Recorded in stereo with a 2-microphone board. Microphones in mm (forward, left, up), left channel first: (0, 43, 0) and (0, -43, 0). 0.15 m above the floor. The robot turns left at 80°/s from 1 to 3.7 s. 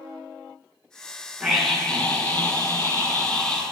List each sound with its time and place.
1.4 s a scream: 10° right (ahead or behind), 1.5 m; by 3.6 s 10° left (ahead or behind), 1.5 m